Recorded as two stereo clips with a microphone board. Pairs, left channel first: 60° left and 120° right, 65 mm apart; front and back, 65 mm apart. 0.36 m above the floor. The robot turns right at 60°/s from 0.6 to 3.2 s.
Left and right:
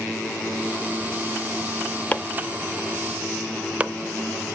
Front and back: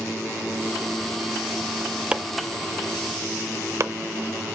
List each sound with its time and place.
2.1 s chopping: 115° left, 0.5 m; by 3.9 s straight behind, 0.5 m